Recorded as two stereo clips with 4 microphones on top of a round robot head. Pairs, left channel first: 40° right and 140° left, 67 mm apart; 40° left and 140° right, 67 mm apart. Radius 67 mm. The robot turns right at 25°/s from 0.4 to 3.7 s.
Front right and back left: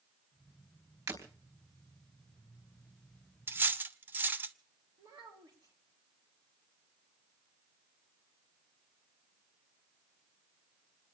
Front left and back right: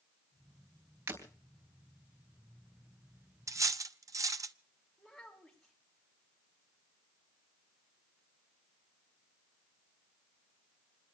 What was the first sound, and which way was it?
Breaking glass, 165° left.